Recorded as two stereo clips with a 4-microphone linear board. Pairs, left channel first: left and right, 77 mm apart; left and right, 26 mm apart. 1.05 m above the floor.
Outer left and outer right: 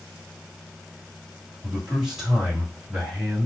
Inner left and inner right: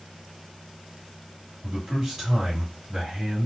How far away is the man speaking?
About 2.5 m.